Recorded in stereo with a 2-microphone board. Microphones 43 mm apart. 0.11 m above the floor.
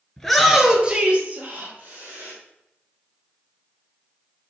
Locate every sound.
0.2 s a shout: 10° left (ahead or behind), 1.4 m; by 2.3 s 50° right (ahead or behind), 3.5 m